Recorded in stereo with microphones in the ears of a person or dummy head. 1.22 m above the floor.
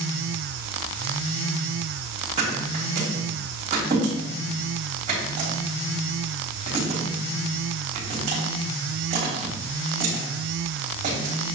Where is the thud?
40° right (ahead or behind), 3.5 m.